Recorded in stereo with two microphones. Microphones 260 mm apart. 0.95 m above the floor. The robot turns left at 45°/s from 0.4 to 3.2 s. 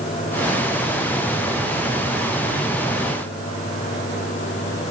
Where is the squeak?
No squeak in this recording.